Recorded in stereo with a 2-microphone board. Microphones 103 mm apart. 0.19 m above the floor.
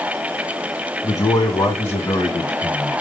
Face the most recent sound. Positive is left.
turn(degrees=5)  # may be behind; listen again after turning